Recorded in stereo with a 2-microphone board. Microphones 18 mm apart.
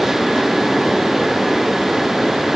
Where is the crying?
I don't hear crying.